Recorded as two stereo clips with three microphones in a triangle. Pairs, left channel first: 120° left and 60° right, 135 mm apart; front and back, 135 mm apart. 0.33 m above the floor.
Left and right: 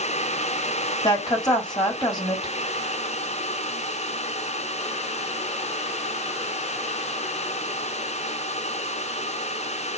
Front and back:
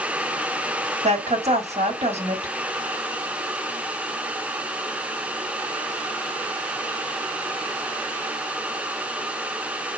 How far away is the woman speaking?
About 1.4 m.